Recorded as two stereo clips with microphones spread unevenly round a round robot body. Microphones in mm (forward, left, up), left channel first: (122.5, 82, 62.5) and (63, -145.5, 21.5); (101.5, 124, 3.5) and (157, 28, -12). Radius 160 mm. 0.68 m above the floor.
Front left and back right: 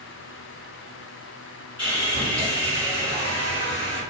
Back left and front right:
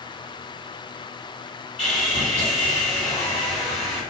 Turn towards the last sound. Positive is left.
turn(degrees=130)